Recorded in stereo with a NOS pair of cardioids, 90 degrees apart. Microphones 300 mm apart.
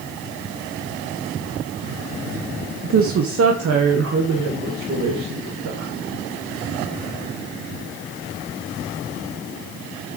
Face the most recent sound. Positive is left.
turn(degrees=-55)